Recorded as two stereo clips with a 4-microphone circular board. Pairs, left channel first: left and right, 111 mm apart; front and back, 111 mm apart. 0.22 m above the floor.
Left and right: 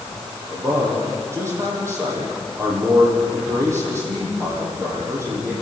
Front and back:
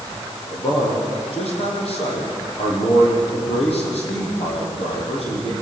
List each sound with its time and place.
0.5 s a man speaking: 25° right, 9.5 m